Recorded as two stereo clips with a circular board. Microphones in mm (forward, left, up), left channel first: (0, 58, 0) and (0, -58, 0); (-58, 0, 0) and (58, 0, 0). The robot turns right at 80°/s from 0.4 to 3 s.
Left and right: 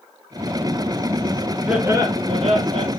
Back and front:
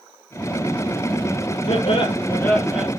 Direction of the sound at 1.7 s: 175° right.